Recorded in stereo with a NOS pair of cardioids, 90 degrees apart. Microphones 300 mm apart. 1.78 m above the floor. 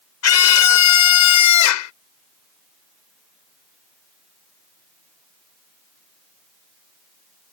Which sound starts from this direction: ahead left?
A scream, at 0.2 s.